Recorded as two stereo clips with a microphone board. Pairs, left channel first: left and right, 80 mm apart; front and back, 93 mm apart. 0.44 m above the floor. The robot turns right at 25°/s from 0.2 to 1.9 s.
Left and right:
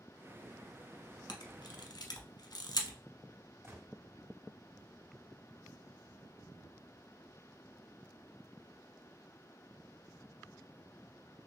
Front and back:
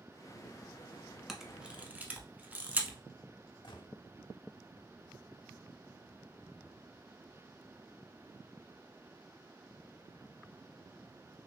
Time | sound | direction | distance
1.3 | a camera shutter | 95° left | 0.8 m
3.6 | a gunshot | 35° right | 1.2 m